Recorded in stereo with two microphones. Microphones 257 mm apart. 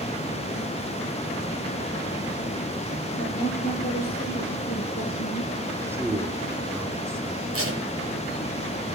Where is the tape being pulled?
60° right (ahead or behind), 4.5 m.